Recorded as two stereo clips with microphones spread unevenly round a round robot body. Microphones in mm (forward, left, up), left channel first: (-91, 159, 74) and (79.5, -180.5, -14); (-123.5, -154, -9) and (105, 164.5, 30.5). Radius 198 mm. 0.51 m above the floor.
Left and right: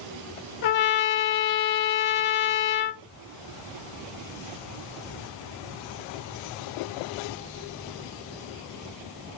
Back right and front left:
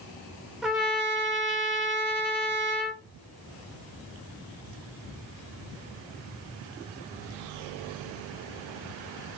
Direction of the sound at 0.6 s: 145° left.